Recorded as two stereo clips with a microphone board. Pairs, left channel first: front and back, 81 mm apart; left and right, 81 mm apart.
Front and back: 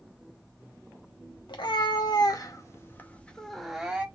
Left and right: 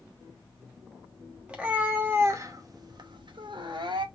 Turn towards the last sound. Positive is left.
turn(degrees=-105)